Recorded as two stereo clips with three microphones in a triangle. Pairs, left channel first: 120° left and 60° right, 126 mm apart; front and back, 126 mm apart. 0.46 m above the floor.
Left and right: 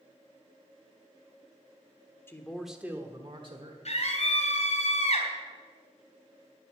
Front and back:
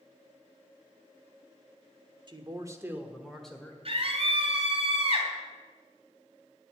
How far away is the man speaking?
About 1.4 m.